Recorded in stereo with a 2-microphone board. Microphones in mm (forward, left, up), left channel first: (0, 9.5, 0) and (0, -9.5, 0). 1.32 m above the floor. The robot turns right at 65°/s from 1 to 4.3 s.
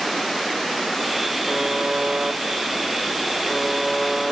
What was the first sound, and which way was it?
A buzzer, 160° right.